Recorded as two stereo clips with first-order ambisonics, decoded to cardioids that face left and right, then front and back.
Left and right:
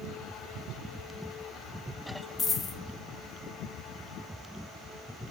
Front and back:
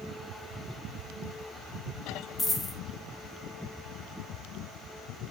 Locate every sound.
2.4 s a dropped coin: 55° left, 1.1 m